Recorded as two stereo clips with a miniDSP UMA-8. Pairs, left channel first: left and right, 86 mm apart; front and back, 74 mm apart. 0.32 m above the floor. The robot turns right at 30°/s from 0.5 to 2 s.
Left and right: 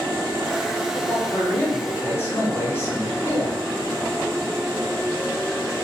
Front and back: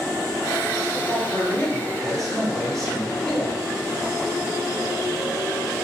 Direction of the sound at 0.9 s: 50° left.